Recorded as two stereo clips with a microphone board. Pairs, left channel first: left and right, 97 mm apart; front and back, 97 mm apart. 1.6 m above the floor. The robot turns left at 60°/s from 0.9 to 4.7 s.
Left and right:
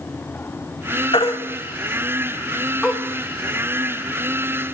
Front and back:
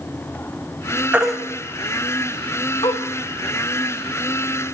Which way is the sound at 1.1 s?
105° left.